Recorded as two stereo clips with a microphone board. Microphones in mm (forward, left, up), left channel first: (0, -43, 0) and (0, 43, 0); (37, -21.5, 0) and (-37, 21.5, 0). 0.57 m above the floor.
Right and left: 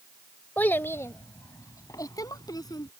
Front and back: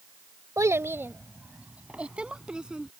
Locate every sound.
0.6 s a child speaking: 160° right; by 2.9 s 130° right